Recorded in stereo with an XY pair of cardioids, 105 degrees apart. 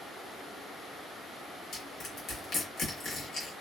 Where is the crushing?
50° left, 1.3 m.